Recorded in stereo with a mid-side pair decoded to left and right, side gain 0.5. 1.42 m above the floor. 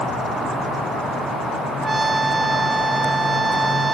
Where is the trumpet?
25° right.